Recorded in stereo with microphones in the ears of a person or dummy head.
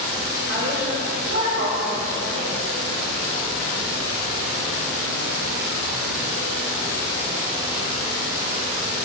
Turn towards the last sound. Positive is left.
turn(degrees=-70)  # may be behind; listen again after turning